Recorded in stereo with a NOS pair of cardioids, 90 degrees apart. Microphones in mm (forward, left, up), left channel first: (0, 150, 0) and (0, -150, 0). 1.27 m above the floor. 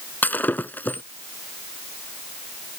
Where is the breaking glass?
5° left.